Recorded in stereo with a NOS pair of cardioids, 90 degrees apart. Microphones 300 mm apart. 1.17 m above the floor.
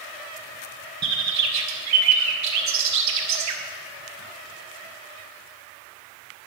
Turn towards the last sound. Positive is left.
turn(degrees=-70)